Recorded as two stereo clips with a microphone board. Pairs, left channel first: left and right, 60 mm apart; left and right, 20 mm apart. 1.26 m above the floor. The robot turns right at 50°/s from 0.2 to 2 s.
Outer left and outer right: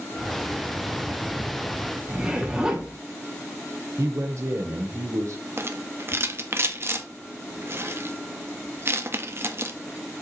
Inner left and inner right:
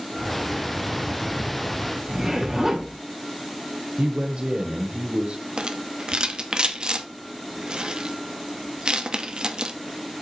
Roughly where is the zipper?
Centre.